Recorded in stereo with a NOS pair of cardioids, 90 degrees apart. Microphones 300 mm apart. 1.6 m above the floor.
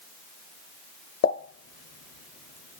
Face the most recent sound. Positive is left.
turn(degrees=50)